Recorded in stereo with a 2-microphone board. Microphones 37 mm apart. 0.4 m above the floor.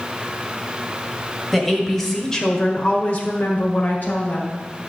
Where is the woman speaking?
5° right (ahead or behind), 2 m; by 4.6 s 50° left (ahead or behind), 2 m.